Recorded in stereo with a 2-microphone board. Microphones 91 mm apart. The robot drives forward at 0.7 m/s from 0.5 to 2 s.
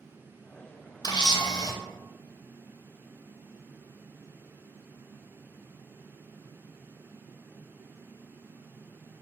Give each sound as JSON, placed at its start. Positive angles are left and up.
{"t": 1.0, "sound": "a camera shutter", "side_deg": 50, "distance_m": 0.5}